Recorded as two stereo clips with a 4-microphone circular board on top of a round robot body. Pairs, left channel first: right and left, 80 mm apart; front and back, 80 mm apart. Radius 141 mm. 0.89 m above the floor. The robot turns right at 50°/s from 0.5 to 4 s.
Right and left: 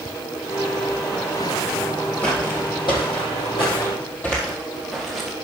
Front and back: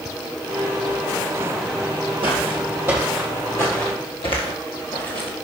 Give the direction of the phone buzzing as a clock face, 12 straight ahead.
No phone buzzing in this recording.